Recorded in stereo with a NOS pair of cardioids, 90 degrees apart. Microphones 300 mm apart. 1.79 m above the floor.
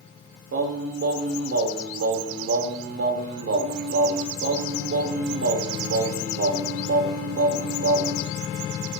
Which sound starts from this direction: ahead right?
Singing, at 0.5 s.